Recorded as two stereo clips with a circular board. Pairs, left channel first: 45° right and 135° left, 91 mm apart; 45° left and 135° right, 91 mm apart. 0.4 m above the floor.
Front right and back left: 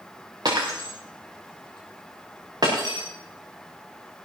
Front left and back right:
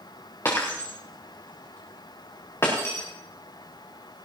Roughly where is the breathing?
I don't hear breathing.